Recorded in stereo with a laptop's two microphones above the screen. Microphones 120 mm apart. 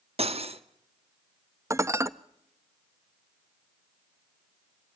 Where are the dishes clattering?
25° right (ahead or behind), 0.7 m.